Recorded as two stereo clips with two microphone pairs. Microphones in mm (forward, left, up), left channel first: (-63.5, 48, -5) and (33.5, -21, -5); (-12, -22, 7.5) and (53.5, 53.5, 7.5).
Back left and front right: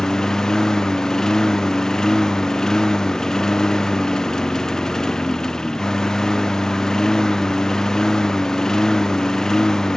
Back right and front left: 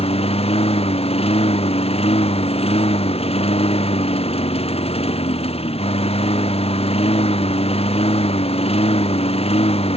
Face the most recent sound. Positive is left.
turn(degrees=-130)